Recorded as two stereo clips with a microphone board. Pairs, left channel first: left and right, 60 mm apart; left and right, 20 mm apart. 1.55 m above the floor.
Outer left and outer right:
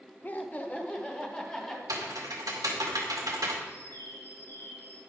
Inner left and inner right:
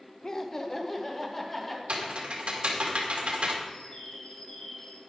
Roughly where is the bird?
Left.